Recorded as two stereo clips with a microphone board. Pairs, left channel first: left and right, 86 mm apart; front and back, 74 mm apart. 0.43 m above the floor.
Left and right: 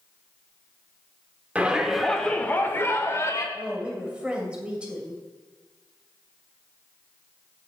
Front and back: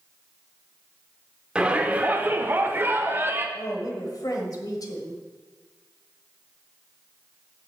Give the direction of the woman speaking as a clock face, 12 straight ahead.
12 o'clock.